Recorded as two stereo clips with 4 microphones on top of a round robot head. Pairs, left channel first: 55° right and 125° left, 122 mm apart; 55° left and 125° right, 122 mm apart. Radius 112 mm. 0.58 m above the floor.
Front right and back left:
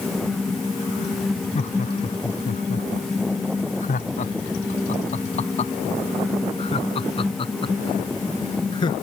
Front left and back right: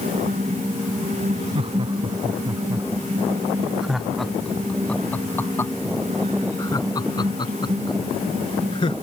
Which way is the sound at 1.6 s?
80° right.